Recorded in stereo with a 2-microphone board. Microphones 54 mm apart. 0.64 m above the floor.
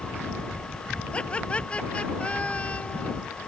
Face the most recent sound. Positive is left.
turn(degrees=25)  # may be behind; listen again after turning